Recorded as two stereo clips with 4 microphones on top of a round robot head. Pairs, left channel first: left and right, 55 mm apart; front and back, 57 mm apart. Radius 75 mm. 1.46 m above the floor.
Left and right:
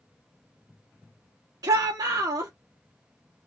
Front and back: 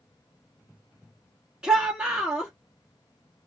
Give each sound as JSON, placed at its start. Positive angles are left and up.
{"t": 1.6, "sound": "a shout", "azimuth_deg": -100, "distance_m": 0.8}